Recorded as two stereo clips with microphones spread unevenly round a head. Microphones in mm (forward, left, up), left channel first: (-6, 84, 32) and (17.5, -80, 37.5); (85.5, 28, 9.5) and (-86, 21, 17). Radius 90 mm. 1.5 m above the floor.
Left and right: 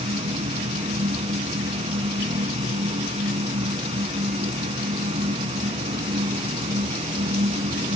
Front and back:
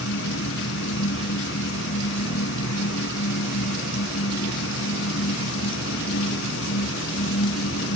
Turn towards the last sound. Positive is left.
turn(degrees=-25)